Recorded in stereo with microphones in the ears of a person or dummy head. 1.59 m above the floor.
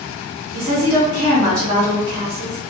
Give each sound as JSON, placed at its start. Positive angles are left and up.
{"t": 0.5, "sound": "a woman speaking", "side_deg": -40, "distance_m": 0.9}